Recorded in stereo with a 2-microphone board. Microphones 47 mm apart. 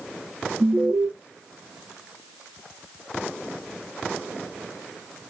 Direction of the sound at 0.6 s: 50° right (ahead or behind).